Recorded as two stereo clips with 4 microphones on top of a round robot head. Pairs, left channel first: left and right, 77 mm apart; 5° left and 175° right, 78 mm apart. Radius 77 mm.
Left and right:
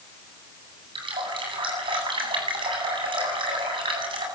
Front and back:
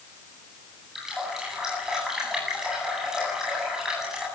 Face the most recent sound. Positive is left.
turn(degrees=-90)